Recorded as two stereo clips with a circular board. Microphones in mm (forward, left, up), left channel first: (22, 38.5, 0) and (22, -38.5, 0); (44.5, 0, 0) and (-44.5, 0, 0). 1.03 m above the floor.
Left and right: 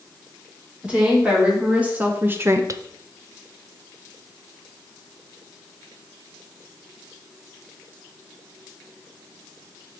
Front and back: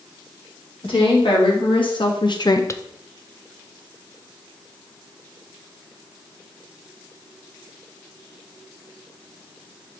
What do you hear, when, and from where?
0.8 s a woman speaking: 15° right, 3 m; by 2.8 s 65° right, 0.5 m